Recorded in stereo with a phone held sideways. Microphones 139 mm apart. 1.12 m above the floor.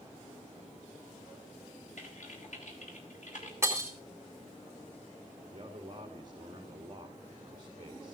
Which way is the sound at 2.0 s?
60° left (ahead or behind).